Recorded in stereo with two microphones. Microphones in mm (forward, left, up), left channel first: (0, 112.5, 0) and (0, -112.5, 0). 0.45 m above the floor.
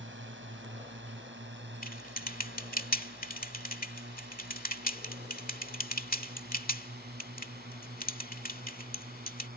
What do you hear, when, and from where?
0.0 s a drone: 60° right (ahead or behind); by 9.6 s 45° right (ahead or behind)
1.8 s typing on a keyboard: 40° left (ahead or behind)